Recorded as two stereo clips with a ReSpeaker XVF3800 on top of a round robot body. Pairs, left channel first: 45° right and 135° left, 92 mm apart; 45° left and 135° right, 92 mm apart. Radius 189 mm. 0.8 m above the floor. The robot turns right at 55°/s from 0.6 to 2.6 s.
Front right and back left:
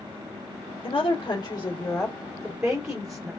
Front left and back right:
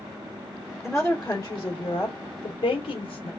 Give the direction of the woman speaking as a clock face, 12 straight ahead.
2 o'clock.